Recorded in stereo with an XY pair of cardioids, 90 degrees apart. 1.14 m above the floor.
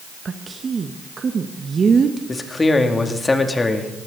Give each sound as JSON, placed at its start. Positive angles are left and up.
{"t": 0.2, "sound": "a woman speaking", "azimuth_deg": -45, "distance_m": 1.2}
{"t": 2.3, "sound": "a man speaking", "azimuth_deg": 25, "distance_m": 2.5}